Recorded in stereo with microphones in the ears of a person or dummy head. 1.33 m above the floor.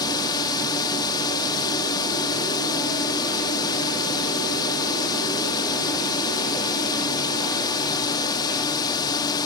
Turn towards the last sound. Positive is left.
turn(degrees=25)  # may be behind; listen again after turning